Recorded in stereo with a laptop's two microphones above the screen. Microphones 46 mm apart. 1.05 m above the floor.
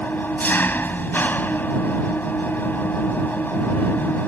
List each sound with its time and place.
0.0 s an engine running: 40° left (ahead or behind)